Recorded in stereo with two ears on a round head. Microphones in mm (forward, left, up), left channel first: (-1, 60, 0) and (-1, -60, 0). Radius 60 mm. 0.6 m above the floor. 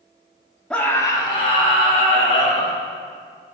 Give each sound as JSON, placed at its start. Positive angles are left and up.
{"t": 0.7, "sound": "a scream", "side_deg": 5, "distance_m": 1.1}